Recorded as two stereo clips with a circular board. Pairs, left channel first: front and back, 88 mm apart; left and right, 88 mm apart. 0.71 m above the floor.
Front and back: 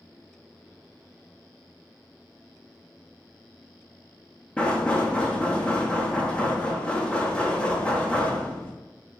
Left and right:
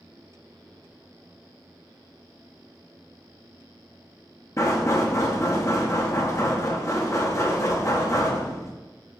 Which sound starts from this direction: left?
Knocking, at 4.6 s.